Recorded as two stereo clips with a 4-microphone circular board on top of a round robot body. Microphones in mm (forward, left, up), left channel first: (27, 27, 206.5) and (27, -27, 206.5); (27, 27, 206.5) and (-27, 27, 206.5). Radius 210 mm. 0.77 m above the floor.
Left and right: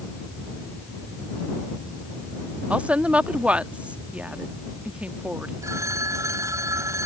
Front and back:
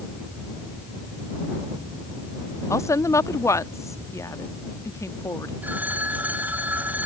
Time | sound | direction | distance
2.7 | a woman speaking | 25° right | ?
5.6 | a phone ringing | 120° right | ?